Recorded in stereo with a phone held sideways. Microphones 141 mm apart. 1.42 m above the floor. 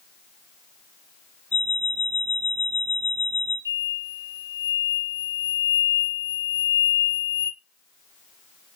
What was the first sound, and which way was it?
An alarm clock, 15° left (ahead or behind).